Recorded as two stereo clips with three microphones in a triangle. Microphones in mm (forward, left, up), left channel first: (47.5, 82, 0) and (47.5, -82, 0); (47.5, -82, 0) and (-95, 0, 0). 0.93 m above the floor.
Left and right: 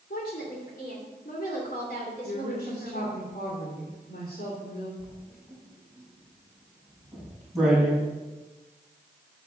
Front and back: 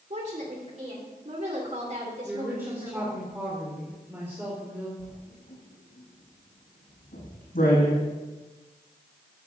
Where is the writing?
Straight ahead, 6.5 m.